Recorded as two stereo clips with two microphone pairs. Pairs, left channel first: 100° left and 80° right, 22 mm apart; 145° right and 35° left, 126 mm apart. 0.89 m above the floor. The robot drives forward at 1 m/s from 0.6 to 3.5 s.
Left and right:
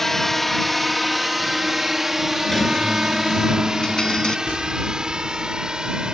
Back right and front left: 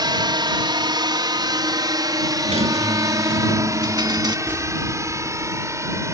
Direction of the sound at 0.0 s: 30° left.